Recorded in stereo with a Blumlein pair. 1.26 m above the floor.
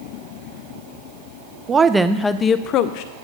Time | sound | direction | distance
1.7 | a woman speaking | 20° right | 0.6 m